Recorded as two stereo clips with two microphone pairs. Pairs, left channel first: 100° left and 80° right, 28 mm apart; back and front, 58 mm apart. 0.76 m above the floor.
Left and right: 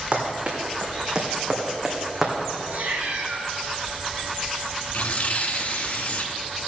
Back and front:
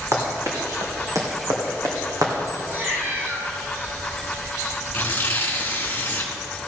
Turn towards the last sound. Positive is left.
turn(degrees=125)